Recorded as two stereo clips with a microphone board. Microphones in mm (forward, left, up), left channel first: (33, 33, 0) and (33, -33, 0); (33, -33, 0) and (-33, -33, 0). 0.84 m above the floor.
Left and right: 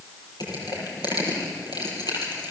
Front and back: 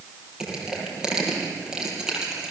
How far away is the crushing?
About 6 m.